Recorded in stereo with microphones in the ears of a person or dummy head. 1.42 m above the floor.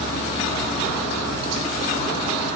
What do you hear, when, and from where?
0.0 s an insect: 35° left (ahead or behind), 0.9 m